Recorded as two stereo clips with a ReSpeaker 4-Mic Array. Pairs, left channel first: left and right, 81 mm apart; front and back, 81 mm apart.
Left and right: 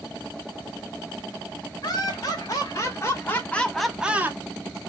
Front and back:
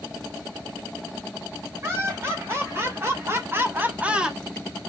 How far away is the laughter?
About 3 m.